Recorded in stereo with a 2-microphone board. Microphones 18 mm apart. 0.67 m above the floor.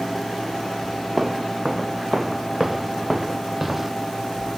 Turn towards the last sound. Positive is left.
turn(degrees=-5)  # may be behind; listen again after turning